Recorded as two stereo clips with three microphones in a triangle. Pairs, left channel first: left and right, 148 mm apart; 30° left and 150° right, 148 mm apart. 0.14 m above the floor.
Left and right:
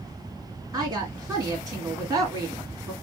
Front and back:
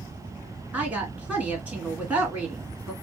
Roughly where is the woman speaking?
Right.